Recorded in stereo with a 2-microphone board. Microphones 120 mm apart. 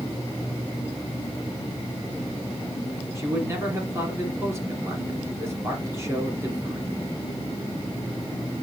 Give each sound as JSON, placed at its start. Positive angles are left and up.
{"t": 3.1, "sound": "a man speaking", "side_deg": -25, "distance_m": 3.0}